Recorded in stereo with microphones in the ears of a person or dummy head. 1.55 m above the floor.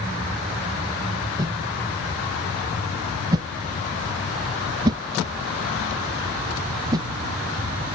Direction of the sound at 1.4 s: 20° right (ahead or behind).